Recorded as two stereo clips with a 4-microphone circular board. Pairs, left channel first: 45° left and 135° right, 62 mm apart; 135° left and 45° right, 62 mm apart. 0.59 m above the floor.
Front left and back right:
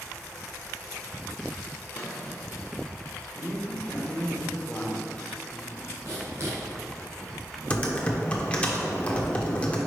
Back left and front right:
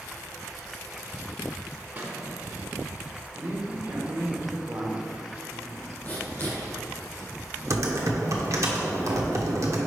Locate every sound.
1.9 s a squeak: 5° left, 1.2 m
3.4 s a man speaking: 15° right, 1.3 m
6.0 s writing: 170° right, 2 m
7.7 s typing on a keyboard: 25° right, 1.0 m